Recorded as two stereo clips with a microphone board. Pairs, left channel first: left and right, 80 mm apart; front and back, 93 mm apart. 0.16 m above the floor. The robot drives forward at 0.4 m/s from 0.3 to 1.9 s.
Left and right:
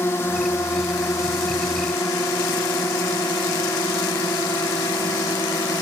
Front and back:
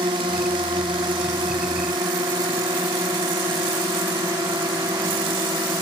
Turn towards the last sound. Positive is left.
turn(degrees=130)